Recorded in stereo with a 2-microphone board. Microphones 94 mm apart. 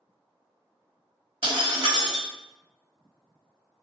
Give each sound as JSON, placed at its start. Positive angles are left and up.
{"t": 1.4, "sound": "breaking glass", "side_deg": -55, "distance_m": 1.1}